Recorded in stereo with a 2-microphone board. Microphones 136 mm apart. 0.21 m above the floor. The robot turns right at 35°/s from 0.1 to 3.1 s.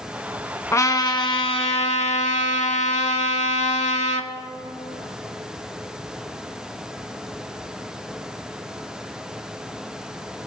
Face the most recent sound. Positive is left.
turn(degrees=110)